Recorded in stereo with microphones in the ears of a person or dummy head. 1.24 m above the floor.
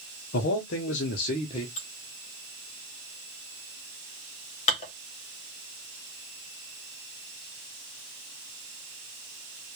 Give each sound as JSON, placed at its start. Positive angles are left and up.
{"t": 0.3, "sound": "a man speaking", "side_deg": 55, "distance_m": 0.7}
{"t": 1.8, "sound": "dishes clattering", "side_deg": 40, "distance_m": 0.9}